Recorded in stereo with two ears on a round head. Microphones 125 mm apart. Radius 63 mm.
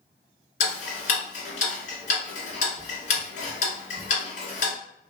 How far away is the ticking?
About 1.6 m.